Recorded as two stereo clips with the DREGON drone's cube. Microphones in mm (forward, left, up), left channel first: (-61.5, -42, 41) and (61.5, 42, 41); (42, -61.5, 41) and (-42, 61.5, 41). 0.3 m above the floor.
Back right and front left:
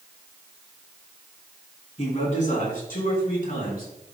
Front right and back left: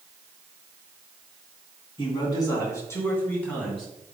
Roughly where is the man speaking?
Right.